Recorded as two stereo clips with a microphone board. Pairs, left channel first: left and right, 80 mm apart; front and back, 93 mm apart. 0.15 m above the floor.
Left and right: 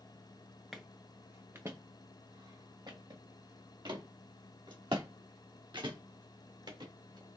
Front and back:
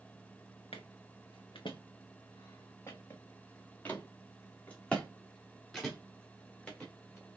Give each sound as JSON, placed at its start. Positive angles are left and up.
{"t": 0.7, "sound": "footsteps", "azimuth_deg": 0, "distance_m": 0.8}